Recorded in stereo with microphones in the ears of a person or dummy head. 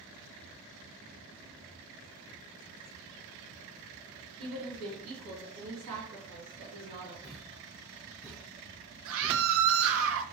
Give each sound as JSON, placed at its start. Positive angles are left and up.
{"t": 4.4, "sound": "a woman speaking", "side_deg": -75, "distance_m": 1.8}
{"t": 7.2, "sound": "a thud", "side_deg": 0, "distance_m": 0.6}
{"t": 9.1, "sound": "a scream", "side_deg": -75, "distance_m": 0.8}